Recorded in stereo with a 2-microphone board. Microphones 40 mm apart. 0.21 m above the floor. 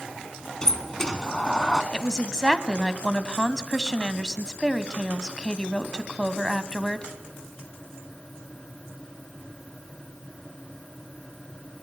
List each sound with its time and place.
0.6 s a sliding door: 15° left (ahead or behind), 1.2 m
1.9 s a woman speaking: 15° left (ahead or behind), 1.2 m